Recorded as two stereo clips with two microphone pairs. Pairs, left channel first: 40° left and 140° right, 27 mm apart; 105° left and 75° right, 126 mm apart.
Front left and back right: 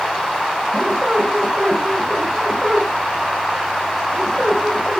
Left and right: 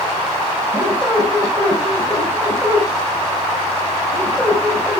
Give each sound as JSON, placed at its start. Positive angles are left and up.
{"t": 0.7, "sound": "a squeak", "azimuth_deg": -175, "distance_m": 6.0}